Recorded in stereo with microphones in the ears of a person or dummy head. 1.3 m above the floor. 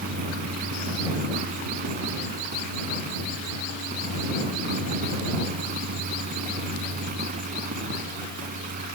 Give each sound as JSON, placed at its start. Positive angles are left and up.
{"t": 0.0, "sound": "a fan", "side_deg": -50}